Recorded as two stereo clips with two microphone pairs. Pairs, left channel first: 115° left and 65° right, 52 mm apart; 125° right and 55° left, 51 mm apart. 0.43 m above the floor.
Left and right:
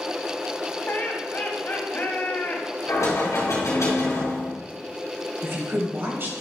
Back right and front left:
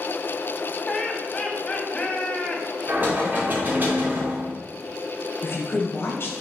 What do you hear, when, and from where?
0.9 s laughter: 165° left, 2 m
2.9 s knocking: 105° left, 3.5 m
5.4 s a woman speaking: 100° right, 2 m